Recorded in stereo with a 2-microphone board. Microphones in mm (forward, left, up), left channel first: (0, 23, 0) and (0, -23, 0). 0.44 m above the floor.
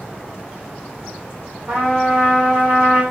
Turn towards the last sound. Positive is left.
turn(degrees=-50)  # may be behind; listen again after turning